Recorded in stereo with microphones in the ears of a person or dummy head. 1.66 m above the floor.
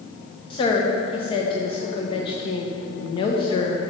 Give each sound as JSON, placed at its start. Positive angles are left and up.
{"t": 0.5, "sound": "a woman speaking", "side_deg": 35, "distance_m": 1.0}